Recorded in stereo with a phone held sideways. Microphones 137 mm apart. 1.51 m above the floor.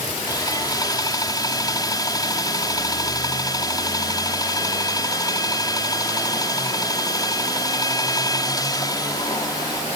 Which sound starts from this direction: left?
Sawing, at 0.3 s.